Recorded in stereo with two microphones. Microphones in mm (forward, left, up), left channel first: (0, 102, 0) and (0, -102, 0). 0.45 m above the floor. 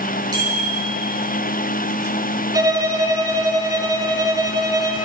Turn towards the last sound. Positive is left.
turn(degrees=-15)  # may be behind; listen again after turning